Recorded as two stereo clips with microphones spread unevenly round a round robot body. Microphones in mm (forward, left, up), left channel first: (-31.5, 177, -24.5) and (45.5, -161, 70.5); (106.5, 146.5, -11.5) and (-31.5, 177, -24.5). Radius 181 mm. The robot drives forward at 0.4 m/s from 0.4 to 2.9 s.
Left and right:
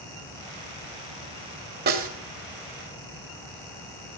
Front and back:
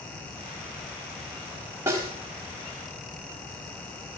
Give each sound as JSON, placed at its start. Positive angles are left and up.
{"t": 1.9, "sound": "a snare drum", "azimuth_deg": -115, "distance_m": 0.9}